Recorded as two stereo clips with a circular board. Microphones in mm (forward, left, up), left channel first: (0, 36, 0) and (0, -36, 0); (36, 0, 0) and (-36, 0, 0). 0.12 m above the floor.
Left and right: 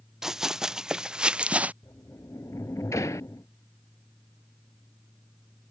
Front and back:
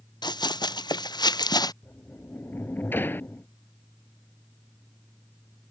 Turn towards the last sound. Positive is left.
turn(degrees=55)